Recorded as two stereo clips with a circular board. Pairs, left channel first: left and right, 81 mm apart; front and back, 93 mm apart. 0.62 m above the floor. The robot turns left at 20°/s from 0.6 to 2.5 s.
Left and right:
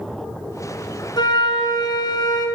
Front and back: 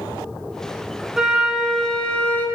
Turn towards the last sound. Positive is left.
turn(degrees=70)